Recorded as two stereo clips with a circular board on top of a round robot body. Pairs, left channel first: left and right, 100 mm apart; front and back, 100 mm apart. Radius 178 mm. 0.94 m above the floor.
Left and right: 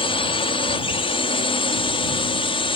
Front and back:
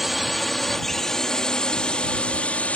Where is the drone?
90° left; by 2.8 s 75° left.